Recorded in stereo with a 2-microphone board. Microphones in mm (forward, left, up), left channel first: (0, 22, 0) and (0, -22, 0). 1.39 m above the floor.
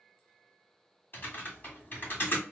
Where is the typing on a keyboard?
45° left (ahead or behind), 1.3 m.